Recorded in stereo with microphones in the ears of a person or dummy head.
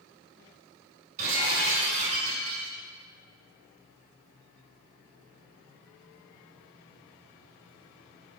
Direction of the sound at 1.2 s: 50° right (ahead or behind).